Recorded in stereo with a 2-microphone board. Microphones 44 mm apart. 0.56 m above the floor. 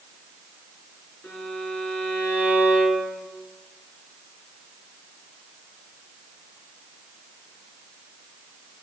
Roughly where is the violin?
Left.